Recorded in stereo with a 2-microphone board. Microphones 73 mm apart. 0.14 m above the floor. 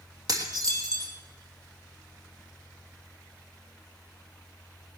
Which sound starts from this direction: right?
Dishes clattering, at 0.3 s.